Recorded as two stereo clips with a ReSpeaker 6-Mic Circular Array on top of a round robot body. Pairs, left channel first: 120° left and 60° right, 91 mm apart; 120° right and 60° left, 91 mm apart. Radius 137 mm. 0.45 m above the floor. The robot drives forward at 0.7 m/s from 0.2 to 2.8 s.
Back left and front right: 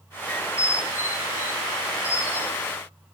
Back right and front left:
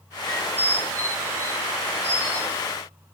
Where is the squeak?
165° left, 0.5 m; by 2.8 s straight behind, 2 m.